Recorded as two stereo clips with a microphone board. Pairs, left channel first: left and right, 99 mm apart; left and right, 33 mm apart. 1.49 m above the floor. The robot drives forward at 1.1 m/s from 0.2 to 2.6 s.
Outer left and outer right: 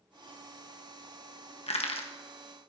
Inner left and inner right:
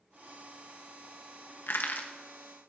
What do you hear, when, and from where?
1.7 s crushing: 90° left, 1.2 m; by 2.1 s 65° left (ahead or behind), 1.3 m